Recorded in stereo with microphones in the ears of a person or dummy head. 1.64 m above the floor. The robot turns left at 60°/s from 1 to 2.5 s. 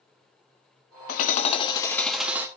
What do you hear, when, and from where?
1.1 s hammering: 65° left, 0.8 m; by 2.5 s 20° right, 0.8 m